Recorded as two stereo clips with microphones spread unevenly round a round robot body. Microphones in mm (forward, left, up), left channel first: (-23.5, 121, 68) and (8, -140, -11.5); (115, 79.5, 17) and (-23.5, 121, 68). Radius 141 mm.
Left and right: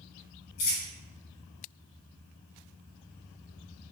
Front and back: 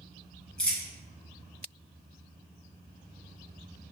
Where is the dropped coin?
75° left, 1.4 m.